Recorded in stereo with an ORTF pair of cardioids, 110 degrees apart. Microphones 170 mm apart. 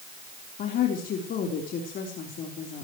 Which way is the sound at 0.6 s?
60° left.